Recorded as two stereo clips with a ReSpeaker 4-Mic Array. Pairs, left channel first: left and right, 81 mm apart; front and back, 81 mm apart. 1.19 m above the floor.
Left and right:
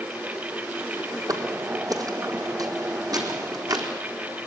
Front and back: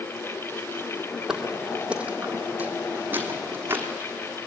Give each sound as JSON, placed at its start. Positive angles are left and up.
{"t": 1.3, "sound": "footsteps", "azimuth_deg": -100, "distance_m": 1.8}